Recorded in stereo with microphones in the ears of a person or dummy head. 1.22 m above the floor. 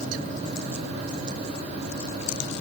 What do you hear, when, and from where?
Only background noise.